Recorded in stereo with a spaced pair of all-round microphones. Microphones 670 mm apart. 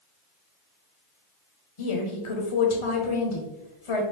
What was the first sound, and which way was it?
A woman speaking, 50° left (ahead or behind).